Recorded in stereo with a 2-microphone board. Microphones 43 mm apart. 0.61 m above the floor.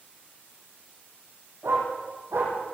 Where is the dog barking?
85° right, 9.5 m.